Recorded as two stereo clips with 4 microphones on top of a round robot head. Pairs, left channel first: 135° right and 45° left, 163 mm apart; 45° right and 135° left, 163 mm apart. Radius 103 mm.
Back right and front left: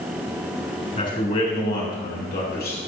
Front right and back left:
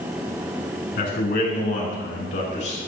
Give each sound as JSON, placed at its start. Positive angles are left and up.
{"t": 1.0, "sound": "a man speaking", "azimuth_deg": -85, "distance_m": 5.5}